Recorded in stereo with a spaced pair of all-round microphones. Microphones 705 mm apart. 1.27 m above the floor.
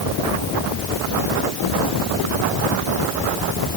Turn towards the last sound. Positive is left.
No sound to turn to.